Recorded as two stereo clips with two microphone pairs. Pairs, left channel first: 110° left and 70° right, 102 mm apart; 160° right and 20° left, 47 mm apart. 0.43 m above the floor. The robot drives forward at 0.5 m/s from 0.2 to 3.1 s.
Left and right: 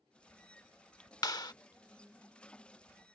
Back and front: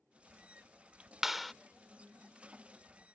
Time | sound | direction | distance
1.2 | a clap | 100° left | ?